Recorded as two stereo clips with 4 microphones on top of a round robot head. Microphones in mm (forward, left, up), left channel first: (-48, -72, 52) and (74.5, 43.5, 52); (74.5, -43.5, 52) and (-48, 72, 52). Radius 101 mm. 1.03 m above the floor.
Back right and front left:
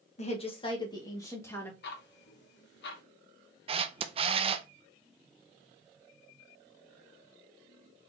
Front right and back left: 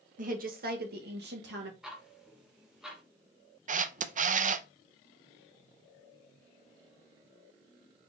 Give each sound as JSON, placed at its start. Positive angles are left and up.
{"t": 0.2, "sound": "a woman speaking", "azimuth_deg": 175, "distance_m": 1.1}
{"t": 1.8, "sound": "ticking", "azimuth_deg": -135, "distance_m": 0.9}
{"t": 3.7, "sound": "a camera shutter", "azimuth_deg": 95, "distance_m": 0.5}